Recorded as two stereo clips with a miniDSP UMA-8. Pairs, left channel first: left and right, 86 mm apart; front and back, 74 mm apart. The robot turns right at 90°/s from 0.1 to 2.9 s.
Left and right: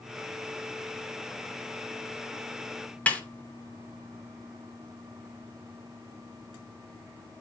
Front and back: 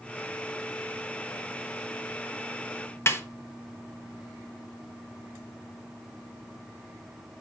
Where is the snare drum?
25° left, 1.1 m.